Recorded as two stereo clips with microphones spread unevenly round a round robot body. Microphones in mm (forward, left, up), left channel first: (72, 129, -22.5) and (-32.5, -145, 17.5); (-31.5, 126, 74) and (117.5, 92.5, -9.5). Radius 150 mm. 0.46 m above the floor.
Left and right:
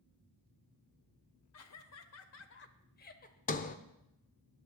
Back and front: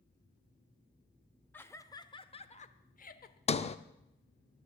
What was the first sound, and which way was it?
Laughter, 70° left.